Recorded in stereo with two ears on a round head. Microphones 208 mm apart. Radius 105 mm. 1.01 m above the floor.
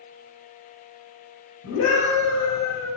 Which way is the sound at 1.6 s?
70° left (ahead or behind).